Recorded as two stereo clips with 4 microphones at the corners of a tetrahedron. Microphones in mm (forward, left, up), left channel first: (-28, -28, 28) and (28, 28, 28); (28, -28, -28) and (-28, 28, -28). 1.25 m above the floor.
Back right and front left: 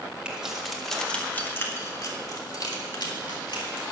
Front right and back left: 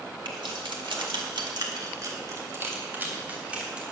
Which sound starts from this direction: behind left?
Keys jangling, at 0.2 s.